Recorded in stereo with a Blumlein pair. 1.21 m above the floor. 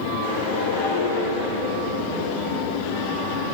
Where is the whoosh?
50° left, 5 m.